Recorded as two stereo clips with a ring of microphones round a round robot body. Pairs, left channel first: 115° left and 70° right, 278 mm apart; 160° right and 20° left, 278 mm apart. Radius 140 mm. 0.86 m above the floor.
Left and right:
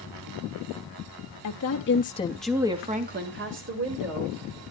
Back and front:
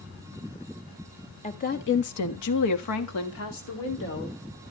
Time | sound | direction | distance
1.4 | a woman speaking | 135° left | 1.6 m